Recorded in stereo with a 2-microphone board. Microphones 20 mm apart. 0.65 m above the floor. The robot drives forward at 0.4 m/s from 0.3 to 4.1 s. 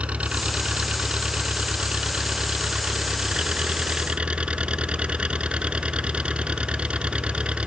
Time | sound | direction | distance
0.0 | an engine running | 70° right (ahead or behind) | ?